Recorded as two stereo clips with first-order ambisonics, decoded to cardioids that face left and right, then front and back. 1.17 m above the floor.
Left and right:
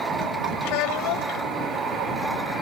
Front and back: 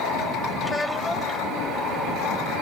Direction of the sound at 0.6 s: 80° left.